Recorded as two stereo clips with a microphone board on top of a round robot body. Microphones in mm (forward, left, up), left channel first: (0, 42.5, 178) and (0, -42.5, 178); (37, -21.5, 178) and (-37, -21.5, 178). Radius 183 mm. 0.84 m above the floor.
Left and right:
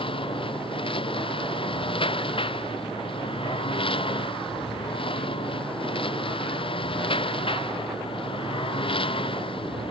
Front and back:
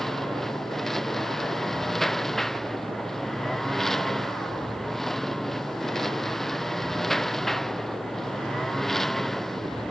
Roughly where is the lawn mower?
Left.